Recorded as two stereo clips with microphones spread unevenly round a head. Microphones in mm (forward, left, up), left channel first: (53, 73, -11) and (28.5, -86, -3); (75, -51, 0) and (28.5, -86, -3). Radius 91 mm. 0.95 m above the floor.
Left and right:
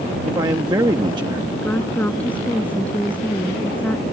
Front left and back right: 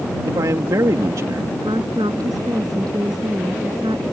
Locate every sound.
0.2 s a man speaking: 170° right
1.6 s a woman speaking: 165° left